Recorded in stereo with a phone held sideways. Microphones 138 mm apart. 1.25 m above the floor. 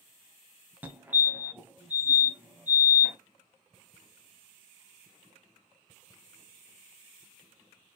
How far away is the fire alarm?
About 1.1 m.